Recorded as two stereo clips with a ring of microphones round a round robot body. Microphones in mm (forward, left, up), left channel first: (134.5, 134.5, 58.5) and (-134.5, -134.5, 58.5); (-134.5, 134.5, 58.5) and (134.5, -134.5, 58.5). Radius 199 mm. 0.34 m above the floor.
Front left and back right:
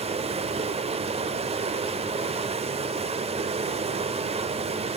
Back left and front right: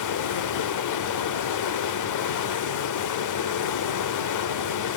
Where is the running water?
155° left, 0.9 m.